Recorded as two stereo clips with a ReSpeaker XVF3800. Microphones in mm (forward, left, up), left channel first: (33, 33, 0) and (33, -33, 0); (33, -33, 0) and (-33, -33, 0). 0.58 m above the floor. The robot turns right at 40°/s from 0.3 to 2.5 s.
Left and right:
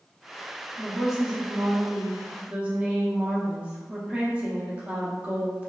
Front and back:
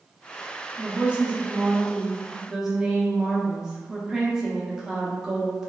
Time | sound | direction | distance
0.8 | a woman speaking | straight behind | 0.6 m